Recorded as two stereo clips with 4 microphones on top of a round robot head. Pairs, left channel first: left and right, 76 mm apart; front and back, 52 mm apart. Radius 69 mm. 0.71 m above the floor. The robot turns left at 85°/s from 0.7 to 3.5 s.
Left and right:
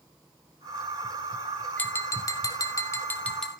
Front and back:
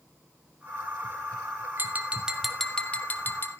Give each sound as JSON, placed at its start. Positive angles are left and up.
{"t": 1.8, "sound": "tapping", "azimuth_deg": 150, "distance_m": 1.5}